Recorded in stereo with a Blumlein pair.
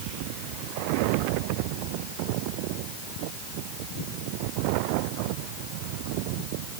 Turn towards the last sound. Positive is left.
No sound to turn to.